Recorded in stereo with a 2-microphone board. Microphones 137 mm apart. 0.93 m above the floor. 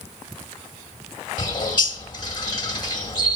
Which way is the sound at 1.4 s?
35° left (ahead or behind).